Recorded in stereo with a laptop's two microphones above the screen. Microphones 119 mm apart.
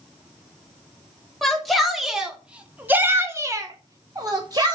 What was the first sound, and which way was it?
A shout, centre (ahead or behind).